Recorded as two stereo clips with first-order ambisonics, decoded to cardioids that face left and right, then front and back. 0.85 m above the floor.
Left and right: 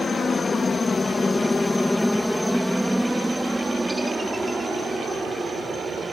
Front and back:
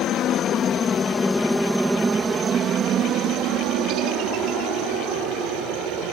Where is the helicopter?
25° left; by 6.1 s 165° right.